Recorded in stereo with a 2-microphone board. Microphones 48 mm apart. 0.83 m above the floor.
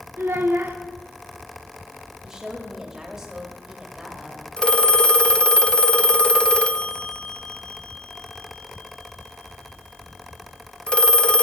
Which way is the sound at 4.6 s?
25° left (ahead or behind).